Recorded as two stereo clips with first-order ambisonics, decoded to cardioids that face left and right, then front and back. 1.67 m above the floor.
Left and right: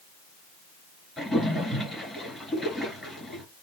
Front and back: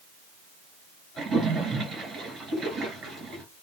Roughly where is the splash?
Behind.